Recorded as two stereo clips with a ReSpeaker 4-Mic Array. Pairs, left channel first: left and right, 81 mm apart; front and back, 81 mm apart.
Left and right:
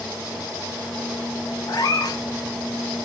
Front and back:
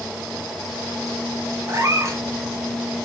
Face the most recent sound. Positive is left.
turn(degrees=130)